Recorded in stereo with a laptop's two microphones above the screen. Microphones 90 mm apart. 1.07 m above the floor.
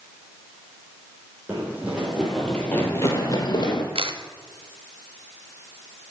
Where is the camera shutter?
85° right, 1.1 m.